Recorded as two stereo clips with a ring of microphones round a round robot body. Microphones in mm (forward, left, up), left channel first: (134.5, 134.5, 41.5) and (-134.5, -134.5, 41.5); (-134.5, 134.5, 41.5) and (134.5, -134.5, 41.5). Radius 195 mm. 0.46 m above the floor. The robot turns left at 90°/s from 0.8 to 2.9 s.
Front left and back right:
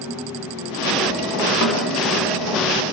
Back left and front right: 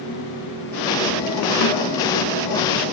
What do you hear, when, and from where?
1.6 s a snare drum: 90° left, 1.0 m; by 1.9 s 65° left, 1.0 m